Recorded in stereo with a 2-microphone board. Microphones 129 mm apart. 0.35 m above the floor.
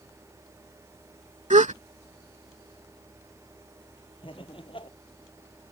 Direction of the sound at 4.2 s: 45° left (ahead or behind).